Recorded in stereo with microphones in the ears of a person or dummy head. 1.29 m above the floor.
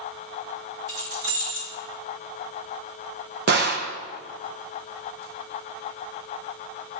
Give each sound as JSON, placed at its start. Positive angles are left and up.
{"t": 0.9, "sound": "keys jangling", "side_deg": -75, "distance_m": 6.5}
{"t": 3.5, "sound": "a gunshot", "side_deg": -55, "distance_m": 1.1}